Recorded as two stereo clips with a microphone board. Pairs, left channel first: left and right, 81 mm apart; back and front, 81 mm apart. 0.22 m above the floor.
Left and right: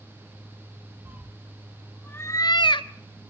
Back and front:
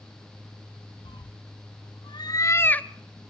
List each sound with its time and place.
1.1 s a cat meowing: 160° right, 1.0 m; by 2.9 s 105° left, 0.6 m